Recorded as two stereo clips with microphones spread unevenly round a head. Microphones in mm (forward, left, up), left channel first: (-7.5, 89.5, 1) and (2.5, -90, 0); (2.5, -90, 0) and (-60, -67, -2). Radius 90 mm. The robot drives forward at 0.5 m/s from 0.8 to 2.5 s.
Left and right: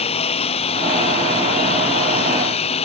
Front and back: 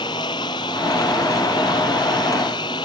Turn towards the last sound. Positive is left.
turn(degrees=35)